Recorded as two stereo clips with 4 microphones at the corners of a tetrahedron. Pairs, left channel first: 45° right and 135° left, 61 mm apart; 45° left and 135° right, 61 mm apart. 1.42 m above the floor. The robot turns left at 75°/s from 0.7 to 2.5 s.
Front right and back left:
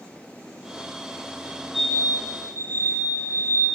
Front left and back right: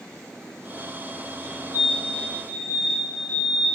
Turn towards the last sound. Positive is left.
turn(degrees=-10)